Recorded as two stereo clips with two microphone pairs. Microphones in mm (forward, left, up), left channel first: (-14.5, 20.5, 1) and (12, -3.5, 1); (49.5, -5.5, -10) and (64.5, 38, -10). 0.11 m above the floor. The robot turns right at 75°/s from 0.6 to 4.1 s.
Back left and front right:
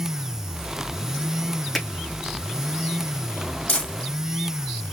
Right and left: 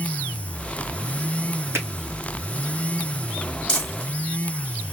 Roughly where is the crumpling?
Behind.